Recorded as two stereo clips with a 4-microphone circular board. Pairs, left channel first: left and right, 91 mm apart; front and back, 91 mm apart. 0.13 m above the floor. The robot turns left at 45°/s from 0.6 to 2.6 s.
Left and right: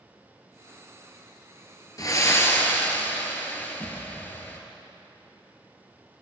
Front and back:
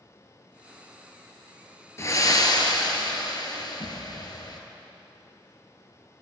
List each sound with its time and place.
2.0 s breathing: 50° left, 1.0 m; by 4.6 s 25° left, 1.0 m